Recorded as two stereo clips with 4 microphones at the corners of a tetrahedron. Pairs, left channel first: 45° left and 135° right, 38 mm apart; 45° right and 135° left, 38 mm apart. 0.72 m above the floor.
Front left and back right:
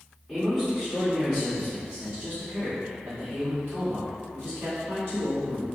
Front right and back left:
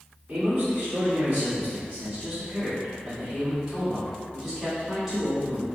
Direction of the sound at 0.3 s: 140° left.